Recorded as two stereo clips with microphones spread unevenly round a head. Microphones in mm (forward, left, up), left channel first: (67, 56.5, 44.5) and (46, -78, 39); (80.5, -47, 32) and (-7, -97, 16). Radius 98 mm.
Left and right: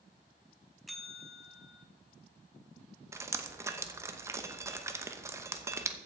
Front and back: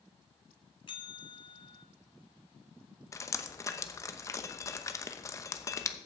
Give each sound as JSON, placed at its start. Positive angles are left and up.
{"t": 0.9, "sound": "a bell", "azimuth_deg": -10, "distance_m": 1.2}
{"t": 3.1, "sound": "dripping", "azimuth_deg": -30, "distance_m": 1.0}